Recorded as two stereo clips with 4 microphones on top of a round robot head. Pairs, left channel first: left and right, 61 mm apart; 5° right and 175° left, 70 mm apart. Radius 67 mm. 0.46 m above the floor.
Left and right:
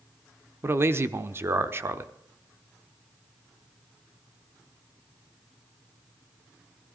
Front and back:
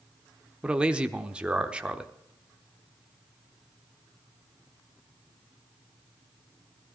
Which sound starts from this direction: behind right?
A man speaking, at 0.6 s.